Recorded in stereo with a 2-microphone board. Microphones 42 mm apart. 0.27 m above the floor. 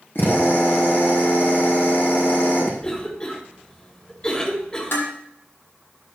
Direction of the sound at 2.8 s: 25° left (ahead or behind).